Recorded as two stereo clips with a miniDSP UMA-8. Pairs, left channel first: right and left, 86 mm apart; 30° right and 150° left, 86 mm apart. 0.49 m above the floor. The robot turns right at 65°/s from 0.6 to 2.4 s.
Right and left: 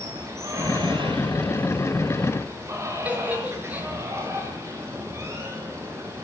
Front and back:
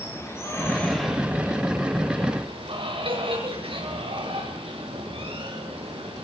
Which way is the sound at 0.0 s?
35° left.